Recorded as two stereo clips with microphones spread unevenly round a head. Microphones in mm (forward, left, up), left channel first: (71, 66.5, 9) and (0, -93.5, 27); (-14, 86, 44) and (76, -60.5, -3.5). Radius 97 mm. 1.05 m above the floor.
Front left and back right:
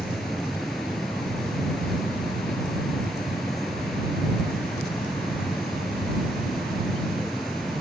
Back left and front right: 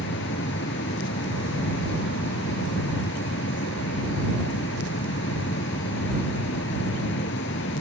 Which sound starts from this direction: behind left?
A fan, at 0.0 s.